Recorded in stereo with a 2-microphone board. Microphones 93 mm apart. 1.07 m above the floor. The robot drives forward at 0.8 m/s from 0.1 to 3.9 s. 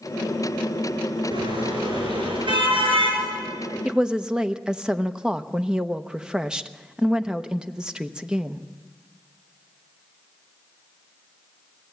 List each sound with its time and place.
1.3 s a car horn: 65° right (ahead or behind), 7.5 m; by 3.2 s 75° right (ahead or behind), 7 m
3.9 s a woman speaking: 10° right (ahead or behind), 0.8 m